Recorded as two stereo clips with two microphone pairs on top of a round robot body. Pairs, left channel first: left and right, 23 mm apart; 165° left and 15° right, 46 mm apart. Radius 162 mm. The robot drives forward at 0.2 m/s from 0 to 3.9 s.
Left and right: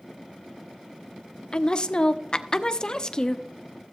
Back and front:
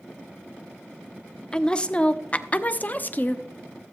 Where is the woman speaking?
100° left, 0.9 m; by 3.5 s 135° left, 1.0 m.